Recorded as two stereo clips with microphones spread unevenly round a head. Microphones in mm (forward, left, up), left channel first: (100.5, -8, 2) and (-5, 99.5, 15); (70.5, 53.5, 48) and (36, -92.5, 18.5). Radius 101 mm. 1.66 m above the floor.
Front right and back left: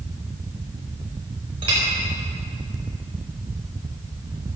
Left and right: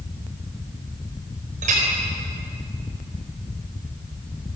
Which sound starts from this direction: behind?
A clink, at 1.6 s.